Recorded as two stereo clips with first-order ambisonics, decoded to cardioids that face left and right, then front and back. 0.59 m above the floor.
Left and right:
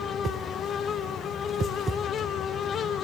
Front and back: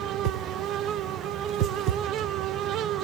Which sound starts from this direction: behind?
A whoosh, at 0.2 s.